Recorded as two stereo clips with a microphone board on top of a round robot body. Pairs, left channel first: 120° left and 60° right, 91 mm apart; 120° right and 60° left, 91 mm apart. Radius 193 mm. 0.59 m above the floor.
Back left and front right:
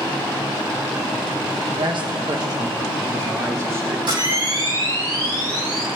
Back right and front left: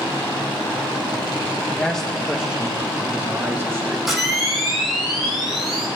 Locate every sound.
1.7 s a man speaking: 50° right, 1.1 m; by 4.0 s straight ahead, 3 m
4.1 s a camera shutter: 25° right, 5 m